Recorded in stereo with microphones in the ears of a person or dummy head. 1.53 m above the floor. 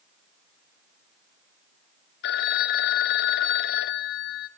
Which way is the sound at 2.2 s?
60° left (ahead or behind).